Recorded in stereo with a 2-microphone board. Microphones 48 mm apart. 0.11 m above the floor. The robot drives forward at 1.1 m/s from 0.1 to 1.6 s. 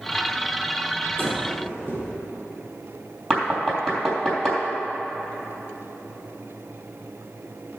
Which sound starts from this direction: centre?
Knocking, at 3.3 s.